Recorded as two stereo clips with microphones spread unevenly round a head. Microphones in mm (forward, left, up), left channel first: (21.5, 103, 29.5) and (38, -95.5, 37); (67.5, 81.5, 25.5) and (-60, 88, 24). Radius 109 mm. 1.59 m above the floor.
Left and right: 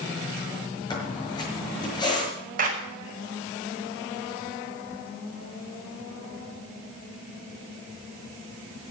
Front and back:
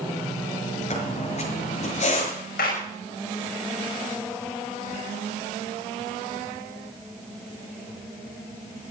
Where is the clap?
40° right, 5.5 m.